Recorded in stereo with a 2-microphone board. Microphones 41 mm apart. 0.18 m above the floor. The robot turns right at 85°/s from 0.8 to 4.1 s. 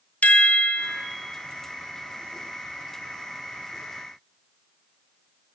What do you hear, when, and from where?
0.2 s a chime: 40° left (ahead or behind), 0.8 m; by 1.1 s 20° left (ahead or behind), 0.8 m